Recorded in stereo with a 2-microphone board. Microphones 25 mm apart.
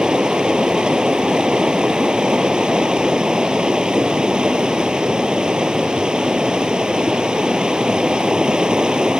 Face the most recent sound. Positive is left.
turn(degrees=-30)  # may be behind; listen again after turning